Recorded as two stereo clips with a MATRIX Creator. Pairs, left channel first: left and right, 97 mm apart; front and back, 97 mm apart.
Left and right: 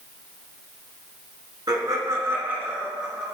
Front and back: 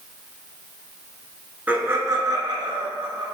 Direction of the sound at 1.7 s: 115° right.